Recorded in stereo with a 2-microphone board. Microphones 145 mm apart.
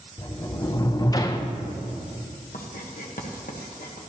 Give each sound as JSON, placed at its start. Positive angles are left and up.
{"t": 0.2, "sound": "a sliding door", "side_deg": 25, "distance_m": 0.6}
{"t": 2.5, "sound": "writing", "side_deg": 70, "distance_m": 1.2}